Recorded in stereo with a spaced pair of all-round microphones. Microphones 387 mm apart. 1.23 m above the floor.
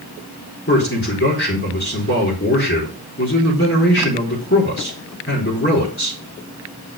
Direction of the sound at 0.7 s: 35° left (ahead or behind).